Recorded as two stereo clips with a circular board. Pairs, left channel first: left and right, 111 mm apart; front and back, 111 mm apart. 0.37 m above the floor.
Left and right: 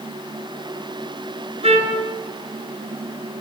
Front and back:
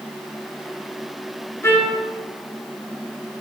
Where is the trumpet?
70° right, 2.5 m.